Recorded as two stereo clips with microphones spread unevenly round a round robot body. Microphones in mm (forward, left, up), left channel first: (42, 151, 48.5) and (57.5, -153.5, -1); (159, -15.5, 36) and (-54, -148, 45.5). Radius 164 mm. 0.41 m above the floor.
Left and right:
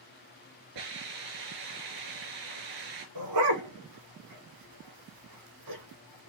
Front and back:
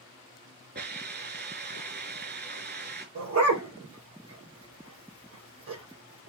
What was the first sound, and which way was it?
A hiss, 100° right.